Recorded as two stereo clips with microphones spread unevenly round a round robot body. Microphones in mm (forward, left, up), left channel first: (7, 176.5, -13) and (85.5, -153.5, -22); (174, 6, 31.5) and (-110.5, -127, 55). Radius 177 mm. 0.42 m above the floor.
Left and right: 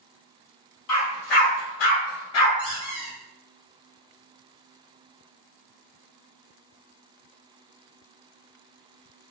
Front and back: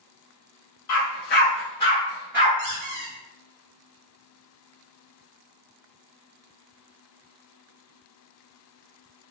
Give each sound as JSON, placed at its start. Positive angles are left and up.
{"t": 0.9, "sound": "a dog barking", "azimuth_deg": 70, "distance_m": 1.0}
{"t": 2.6, "sound": "a squeak", "azimuth_deg": -165, "distance_m": 0.9}